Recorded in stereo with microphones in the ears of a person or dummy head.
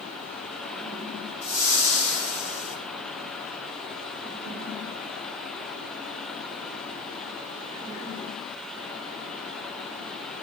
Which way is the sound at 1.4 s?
80° right.